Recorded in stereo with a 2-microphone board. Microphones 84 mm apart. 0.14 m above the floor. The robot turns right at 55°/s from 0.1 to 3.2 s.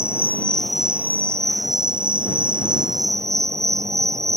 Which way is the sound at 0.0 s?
150° left.